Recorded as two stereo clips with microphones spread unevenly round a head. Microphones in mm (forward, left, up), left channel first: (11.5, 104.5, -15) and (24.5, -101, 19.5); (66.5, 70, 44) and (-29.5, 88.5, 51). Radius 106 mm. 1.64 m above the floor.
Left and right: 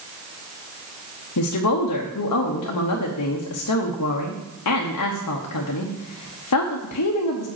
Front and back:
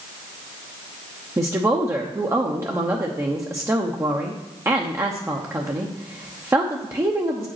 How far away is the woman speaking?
About 0.9 m.